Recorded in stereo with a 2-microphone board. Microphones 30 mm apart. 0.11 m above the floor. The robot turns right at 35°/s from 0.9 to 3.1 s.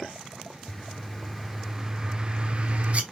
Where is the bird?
170° left, 1.0 m; by 3.0 s 115° right, 1.0 m.